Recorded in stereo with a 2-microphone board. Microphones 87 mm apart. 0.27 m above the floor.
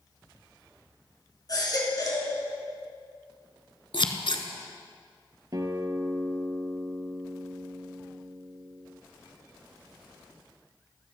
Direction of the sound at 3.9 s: 70° left (ahead or behind).